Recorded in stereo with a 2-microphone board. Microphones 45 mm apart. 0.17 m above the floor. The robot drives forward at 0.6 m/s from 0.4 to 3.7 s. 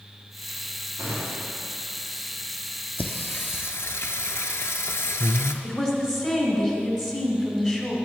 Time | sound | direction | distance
1.0 | a gunshot | 75° right (ahead or behind) | 3 m
3.0 | singing | 40° left (ahead or behind) | 0.8 m
5.6 | a woman speaking | 15° left (ahead or behind) | 1.2 m